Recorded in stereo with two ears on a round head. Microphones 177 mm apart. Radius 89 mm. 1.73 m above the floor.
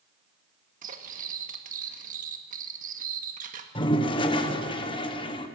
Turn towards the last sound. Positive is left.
turn(degrees=25)  # may be behind; listen again after turning